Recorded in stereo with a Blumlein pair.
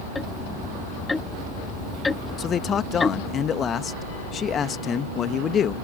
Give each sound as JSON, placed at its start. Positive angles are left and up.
{"t": 0.1, "sound": "ticking", "azimuth_deg": 10}
{"t": 2.4, "sound": "a man speaking", "azimuth_deg": 25}